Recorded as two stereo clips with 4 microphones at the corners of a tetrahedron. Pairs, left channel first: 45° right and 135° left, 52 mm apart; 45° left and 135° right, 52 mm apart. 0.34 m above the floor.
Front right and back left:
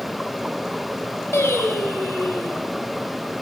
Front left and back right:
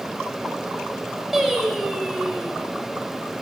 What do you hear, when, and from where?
1.3 s singing: 55° right, 0.9 m